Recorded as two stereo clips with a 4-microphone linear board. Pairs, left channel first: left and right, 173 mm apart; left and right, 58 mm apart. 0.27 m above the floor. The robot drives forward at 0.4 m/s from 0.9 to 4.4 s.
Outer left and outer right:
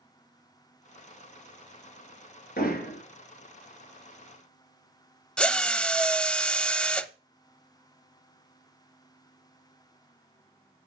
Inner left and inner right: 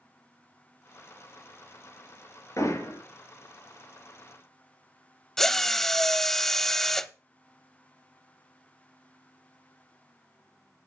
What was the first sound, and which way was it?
Hammering, 65° left (ahead or behind).